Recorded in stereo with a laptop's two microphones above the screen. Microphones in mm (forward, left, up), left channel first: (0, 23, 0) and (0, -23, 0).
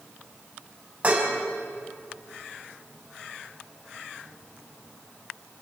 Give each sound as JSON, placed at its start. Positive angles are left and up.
{"t": 1.0, "sound": "dishes clattering", "side_deg": -30, "distance_m": 5.0}